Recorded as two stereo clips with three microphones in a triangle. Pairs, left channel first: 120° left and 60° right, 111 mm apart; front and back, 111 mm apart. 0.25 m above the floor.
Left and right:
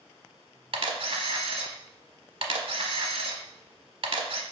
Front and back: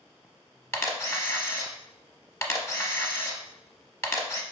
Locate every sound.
0.7 s a camera shutter: 60° right, 0.7 m